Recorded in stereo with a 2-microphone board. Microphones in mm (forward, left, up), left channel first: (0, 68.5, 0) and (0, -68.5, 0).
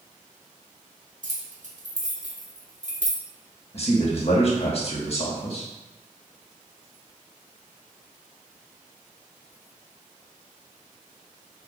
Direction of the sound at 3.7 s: 45° left (ahead or behind).